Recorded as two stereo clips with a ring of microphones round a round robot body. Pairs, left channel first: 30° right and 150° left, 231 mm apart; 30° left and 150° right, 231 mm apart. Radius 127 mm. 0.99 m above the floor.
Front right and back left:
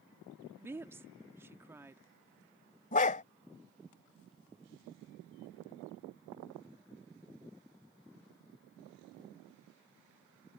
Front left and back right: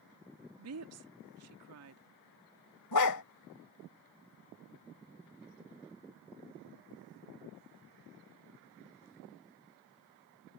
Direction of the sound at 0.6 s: 130° right.